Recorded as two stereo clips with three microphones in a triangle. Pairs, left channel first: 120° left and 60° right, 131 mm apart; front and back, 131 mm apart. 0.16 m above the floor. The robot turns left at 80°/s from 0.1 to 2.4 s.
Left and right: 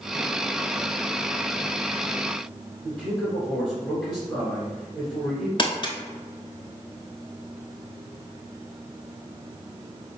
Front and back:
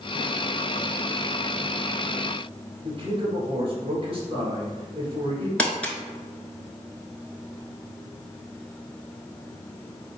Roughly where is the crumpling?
Left.